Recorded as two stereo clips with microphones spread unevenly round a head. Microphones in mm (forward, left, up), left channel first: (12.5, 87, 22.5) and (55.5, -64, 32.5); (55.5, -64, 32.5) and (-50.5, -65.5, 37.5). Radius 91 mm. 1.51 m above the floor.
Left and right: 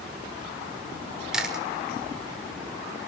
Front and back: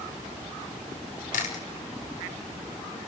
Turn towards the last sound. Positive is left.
turn(degrees=10)